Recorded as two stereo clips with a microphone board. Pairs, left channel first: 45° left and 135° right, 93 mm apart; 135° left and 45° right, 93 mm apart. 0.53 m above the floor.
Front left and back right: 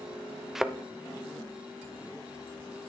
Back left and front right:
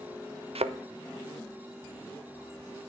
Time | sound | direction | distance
0.6 | a thud | 50° right | 0.6 m